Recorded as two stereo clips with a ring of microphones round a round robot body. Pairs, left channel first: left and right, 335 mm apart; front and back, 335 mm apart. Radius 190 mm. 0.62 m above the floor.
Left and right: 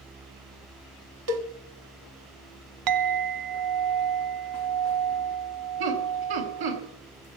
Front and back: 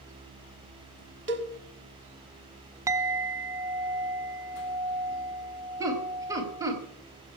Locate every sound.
1.3 s a cowbell: 125° right, 1.5 m
2.9 s a clink: 100° right, 0.8 m
5.8 s laughter: 100° right, 4.5 m